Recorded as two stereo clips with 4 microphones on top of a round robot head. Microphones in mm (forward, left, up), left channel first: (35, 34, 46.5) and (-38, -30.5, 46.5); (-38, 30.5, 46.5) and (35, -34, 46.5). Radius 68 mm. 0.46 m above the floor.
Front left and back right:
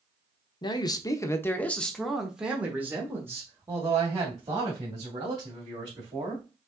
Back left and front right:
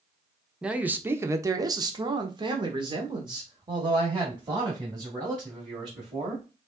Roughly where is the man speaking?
Ahead left.